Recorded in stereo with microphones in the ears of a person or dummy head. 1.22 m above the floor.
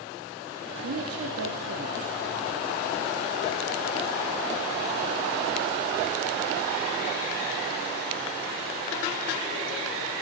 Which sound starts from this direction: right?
A woman speaking, at 0.8 s.